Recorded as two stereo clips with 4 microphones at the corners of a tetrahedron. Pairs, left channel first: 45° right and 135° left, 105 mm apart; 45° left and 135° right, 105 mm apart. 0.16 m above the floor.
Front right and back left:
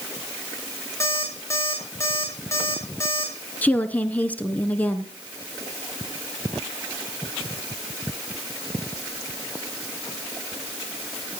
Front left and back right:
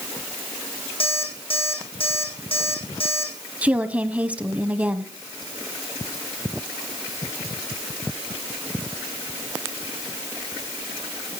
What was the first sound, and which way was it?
An alarm clock, 20° left.